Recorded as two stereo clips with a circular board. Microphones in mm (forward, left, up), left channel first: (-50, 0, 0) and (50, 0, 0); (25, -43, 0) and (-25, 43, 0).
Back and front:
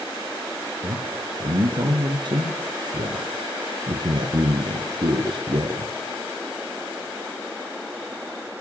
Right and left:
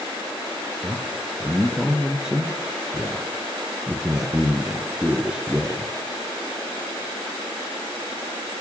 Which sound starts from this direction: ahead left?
A man speaking, at 0.8 s.